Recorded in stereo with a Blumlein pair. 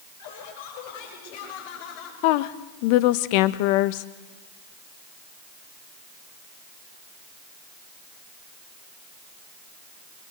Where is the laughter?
55° left, 8.5 m; by 2.1 s 45° left, 8 m.